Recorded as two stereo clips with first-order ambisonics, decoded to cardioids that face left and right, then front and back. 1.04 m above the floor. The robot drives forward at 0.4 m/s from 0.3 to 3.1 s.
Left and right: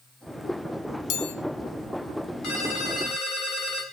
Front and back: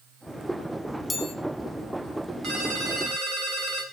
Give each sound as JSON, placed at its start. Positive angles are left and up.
{"t": 1.1, "sound": "a chime", "azimuth_deg": 75, "distance_m": 1.2}
{"t": 2.4, "sound": "a ringtone", "azimuth_deg": 125, "distance_m": 4.0}